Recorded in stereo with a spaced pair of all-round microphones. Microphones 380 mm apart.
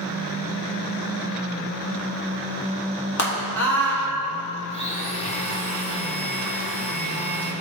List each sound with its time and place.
3.2 s a scream: 45° left (ahead or behind), 3 m
4.7 s a blender: 15° left (ahead or behind), 1.8 m